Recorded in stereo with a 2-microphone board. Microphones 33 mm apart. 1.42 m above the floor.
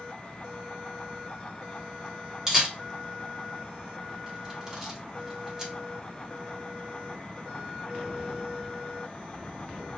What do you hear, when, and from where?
2.5 s a camera shutter: 20° right (ahead or behind), 1.3 m